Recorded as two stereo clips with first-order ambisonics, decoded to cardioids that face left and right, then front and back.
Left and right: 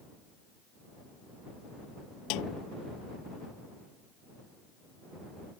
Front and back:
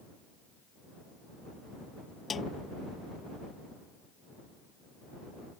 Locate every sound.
2.3 s a snare drum: 70° left